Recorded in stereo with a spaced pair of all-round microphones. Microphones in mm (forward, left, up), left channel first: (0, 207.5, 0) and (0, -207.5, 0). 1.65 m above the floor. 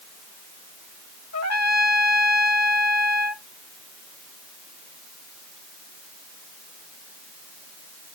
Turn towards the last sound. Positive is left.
turn(degrees=40)  # may be behind; listen again after turning